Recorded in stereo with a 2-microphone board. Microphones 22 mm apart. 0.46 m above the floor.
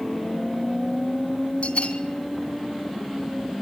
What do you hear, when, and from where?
1.6 s a bell: 65° left (ahead or behind), 3 m